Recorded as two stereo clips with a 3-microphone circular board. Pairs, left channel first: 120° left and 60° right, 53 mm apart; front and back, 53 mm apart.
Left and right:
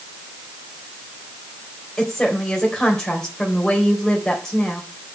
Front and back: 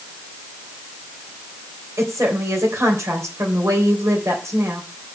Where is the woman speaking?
160° right, 3 m.